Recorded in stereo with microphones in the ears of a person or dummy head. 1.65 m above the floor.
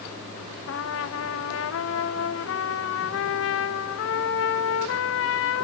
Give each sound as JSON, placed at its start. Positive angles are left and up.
{"t": 0.7, "sound": "a trumpet", "side_deg": 75, "distance_m": 0.8}